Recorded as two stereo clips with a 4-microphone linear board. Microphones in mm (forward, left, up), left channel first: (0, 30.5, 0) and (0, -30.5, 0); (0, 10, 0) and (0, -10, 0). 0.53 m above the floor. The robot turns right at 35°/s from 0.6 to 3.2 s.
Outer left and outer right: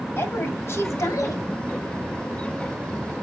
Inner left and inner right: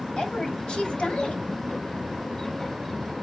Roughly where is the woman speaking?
Ahead left.